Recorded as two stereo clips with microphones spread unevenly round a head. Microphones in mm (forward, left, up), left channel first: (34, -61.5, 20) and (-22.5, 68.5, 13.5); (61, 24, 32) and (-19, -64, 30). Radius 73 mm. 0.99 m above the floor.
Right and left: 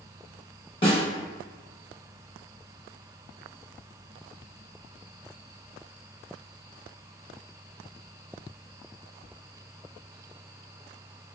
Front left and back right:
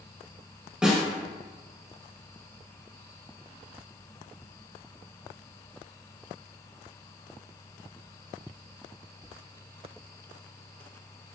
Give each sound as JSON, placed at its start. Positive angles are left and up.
{"t": 0.8, "sound": "a snare drum", "azimuth_deg": -55, "distance_m": 0.9}